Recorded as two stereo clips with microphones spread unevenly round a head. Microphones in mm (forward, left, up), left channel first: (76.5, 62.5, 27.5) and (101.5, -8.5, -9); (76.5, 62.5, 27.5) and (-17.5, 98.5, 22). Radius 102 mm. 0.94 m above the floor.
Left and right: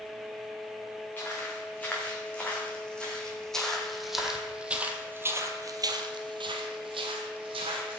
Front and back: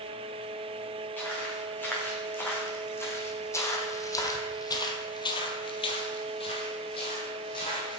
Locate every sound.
1.2 s footsteps: 50° left, 5 m; by 8.0 s 85° right, 2.5 m